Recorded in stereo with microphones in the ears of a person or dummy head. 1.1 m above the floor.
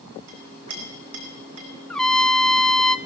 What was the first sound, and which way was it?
A clink, 70° right (ahead or behind).